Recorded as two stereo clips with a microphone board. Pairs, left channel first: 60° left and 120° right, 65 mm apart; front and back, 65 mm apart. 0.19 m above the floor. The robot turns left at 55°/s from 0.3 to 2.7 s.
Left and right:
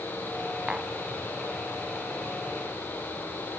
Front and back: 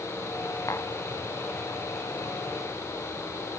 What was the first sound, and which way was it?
Tapping, 40° right.